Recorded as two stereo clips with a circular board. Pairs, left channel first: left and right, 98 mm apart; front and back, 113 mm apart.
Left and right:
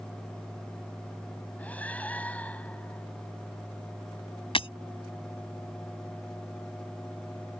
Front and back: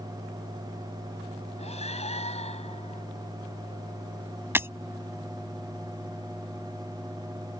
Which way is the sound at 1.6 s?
15° left.